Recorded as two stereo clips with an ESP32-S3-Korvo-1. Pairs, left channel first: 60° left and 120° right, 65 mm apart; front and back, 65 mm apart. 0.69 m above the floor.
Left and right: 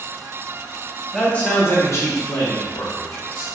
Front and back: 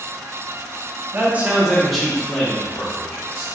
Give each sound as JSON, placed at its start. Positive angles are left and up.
{"t": 1.1, "sound": "a man speaking", "azimuth_deg": 135, "distance_m": 0.8}